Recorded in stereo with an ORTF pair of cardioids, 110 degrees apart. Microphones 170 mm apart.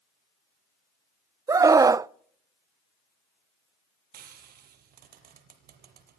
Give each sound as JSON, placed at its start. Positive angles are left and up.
{"t": 1.5, "sound": "a scream", "azimuth_deg": -20, "distance_m": 0.5}
{"t": 4.1, "sound": "frying", "azimuth_deg": -65, "distance_m": 5.5}